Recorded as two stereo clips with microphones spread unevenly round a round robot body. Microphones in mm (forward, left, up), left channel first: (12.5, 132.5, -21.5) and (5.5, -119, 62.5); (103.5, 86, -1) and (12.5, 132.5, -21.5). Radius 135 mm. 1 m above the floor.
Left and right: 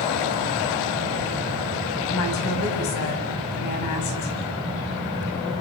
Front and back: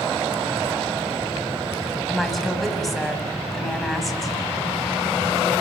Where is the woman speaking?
60° left, 6 m.